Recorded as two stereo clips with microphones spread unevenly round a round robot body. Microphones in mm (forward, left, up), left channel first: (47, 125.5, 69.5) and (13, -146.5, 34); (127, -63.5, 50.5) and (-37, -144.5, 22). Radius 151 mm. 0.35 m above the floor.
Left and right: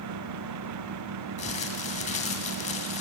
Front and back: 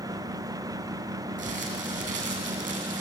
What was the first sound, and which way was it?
Crumpling, 155° left.